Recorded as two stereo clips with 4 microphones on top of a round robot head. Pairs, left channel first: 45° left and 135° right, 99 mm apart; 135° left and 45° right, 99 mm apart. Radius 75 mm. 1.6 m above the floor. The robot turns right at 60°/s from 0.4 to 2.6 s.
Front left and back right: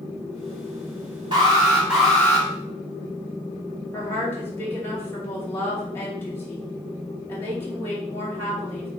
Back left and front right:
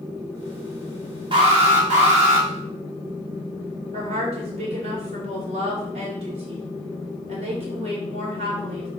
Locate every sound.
1.3 s an alarm: 90° right, 1.9 m; by 2.5 s 20° right, 1.9 m
3.9 s a woman speaking: 25° right, 2.5 m